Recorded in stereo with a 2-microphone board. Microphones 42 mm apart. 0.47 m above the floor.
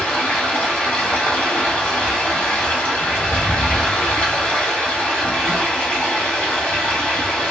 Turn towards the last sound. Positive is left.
turn(degrees=40)  # may be behind; listen again after turning